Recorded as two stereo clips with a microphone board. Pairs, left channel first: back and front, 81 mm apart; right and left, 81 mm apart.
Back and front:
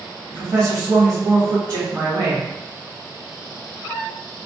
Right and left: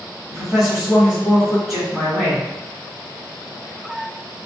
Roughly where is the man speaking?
Ahead.